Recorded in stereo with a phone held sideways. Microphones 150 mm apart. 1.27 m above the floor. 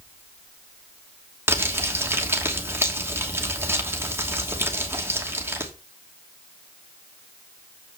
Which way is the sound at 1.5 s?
15° right (ahead or behind).